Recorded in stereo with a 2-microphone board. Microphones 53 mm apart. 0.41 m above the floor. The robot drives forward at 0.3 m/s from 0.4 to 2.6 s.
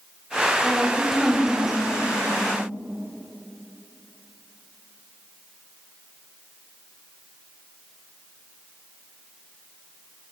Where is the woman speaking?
10° right (ahead or behind), 2.0 m; by 2.5 s 5° right (ahead or behind), 2.5 m.